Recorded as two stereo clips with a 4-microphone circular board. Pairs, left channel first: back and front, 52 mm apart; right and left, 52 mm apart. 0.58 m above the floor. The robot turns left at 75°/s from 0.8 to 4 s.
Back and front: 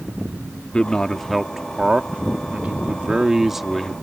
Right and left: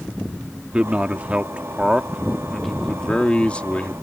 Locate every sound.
0.7 s a man speaking: 130° left; by 3.9 s 105° right